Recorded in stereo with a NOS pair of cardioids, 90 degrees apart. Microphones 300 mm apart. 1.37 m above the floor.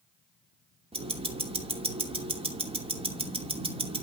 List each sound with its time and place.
0.9 s ticking: 20° right, 2.5 m